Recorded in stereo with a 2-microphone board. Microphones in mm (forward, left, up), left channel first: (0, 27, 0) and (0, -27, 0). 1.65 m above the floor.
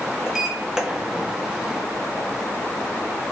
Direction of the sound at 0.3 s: 10° right (ahead or behind).